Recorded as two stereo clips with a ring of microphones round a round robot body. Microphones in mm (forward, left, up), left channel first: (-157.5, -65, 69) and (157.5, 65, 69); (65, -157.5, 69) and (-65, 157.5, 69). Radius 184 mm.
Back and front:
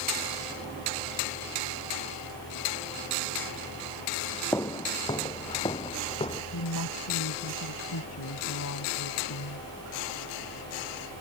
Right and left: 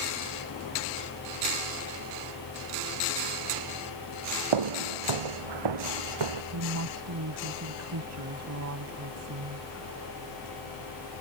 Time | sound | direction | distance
4.5 | footsteps | 120° left | ?
6.5 | a woman speaking | 155° left | ?